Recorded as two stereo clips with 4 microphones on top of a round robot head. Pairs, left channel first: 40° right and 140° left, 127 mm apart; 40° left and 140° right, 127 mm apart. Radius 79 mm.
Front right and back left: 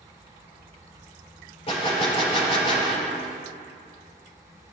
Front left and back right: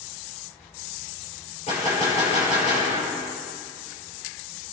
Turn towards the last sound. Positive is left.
turn(degrees=5)